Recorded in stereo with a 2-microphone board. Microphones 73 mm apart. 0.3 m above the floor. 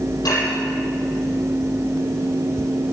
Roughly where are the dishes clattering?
Left.